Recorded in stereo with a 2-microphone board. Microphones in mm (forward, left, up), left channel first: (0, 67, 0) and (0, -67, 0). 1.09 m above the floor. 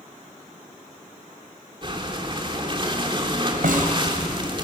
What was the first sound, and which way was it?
Breathing, 35° right (ahead or behind).